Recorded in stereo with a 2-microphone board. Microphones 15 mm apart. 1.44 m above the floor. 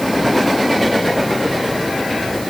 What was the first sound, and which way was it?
Only background noise.